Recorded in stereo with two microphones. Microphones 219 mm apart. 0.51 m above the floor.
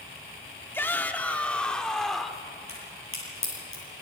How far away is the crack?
About 10 m.